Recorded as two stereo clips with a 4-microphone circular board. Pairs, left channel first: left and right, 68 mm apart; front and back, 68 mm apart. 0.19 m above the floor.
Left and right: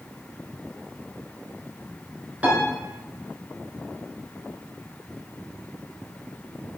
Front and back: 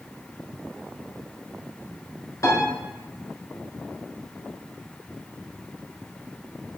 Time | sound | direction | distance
2.4 | a piano | 25° right | 1.1 m